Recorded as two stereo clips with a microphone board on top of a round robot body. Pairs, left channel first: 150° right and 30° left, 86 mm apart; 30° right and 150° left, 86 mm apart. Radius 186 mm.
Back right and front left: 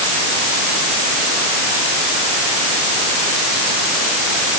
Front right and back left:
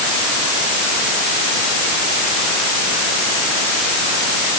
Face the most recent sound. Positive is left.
No sound to turn to.